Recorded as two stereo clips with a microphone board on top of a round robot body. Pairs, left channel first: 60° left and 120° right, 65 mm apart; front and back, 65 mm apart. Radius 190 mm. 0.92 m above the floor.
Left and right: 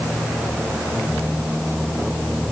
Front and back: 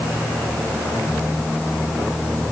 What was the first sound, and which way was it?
Only background noise.